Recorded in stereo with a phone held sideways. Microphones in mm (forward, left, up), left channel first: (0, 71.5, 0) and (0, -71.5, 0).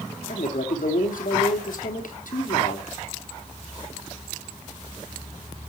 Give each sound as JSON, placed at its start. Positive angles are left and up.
{"t": 0.3, "sound": "a man speaking", "side_deg": 70, "distance_m": 3.0}